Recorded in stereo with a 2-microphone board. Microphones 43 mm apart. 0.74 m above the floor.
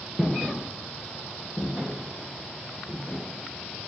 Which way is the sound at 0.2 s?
10° right (ahead or behind).